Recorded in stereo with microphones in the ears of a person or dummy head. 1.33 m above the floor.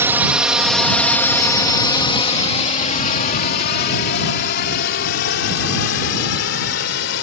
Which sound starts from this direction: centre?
A drone, at 0.0 s.